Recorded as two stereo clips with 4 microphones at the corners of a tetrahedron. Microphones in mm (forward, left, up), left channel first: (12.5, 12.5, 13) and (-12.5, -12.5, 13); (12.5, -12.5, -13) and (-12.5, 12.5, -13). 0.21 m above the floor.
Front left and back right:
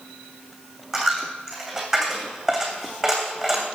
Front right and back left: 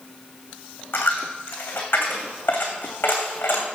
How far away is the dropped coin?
About 2.5 m.